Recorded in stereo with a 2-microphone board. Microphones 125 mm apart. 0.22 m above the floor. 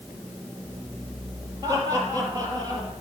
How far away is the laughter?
About 4.5 m.